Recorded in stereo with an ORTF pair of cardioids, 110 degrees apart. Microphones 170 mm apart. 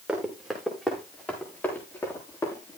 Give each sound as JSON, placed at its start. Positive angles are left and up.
{"t": 0.1, "sound": "running footsteps", "azimuth_deg": -5, "distance_m": 7.0}